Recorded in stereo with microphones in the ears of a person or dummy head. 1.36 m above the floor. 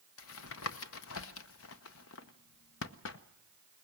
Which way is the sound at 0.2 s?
75° left (ahead or behind).